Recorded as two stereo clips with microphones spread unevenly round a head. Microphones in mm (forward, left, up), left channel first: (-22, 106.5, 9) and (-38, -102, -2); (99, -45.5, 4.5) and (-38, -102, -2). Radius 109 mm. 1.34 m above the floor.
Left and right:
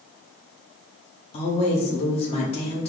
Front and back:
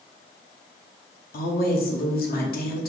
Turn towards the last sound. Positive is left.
turn(degrees=20)